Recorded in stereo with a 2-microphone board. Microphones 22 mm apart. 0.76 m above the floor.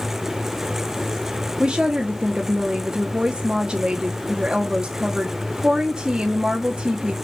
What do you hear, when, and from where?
1.6 s a woman speaking: 35° right (ahead or behind), 1.3 m